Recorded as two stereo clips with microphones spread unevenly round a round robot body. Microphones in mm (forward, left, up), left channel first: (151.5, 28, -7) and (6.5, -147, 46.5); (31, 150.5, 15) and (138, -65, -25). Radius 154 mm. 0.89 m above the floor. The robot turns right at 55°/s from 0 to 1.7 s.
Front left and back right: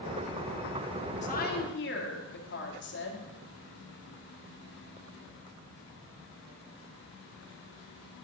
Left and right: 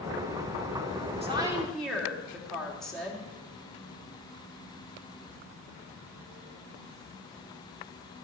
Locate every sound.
1.2 s a woman speaking: straight ahead, 2 m; by 3.3 s 25° left, 2 m